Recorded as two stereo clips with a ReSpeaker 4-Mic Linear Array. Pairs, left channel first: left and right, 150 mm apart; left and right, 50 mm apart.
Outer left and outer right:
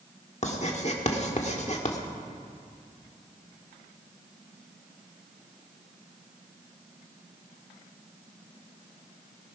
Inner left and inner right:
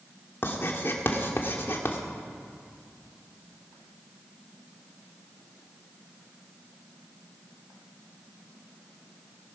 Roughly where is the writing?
Left.